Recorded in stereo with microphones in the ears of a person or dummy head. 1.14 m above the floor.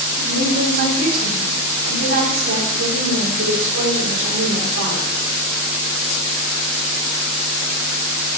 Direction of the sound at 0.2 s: 85° right.